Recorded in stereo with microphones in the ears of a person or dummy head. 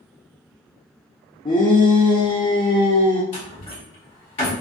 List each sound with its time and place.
1.4 s a shout: 25° left (ahead or behind), 0.5 m
3.3 s a door slam: 40° left (ahead or behind), 1.2 m